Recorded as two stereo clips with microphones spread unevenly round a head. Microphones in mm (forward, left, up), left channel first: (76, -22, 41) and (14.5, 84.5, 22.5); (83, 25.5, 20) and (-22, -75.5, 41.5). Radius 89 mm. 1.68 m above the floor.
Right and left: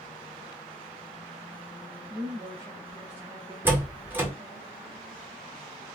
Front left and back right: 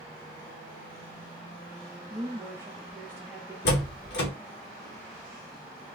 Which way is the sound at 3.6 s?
40° left.